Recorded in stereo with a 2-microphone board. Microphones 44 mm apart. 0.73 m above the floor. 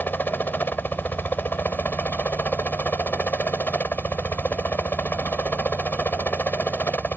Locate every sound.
0.0 s a helicopter: 50° left (ahead or behind)